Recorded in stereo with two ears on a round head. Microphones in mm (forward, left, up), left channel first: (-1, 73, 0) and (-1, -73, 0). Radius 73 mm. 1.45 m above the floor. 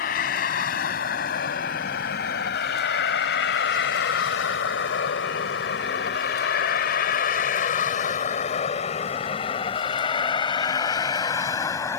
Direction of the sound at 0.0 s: 55° left (ahead or behind).